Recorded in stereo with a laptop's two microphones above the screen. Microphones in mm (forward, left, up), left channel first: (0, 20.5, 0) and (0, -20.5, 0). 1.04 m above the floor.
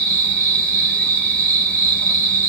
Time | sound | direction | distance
0.0 | an insect | 25° left (ahead or behind) | 3 m